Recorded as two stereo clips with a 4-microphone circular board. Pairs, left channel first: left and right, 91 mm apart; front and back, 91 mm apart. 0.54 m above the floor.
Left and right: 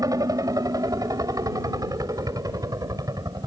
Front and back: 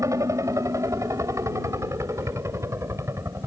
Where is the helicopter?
130° right; by 3.5 s 125° right.